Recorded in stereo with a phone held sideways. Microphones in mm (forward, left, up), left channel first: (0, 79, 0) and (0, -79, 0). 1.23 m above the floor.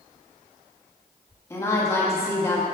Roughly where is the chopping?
I don't hear chopping.